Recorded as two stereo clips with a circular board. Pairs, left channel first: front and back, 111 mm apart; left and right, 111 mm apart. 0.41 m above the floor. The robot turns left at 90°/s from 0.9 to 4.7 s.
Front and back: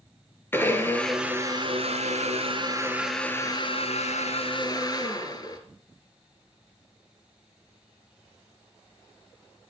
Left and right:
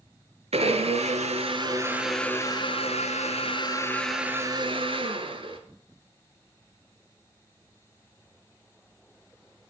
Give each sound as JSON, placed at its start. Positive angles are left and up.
{"t": 0.5, "sound": "a blender", "azimuth_deg": -70, "distance_m": 1.8}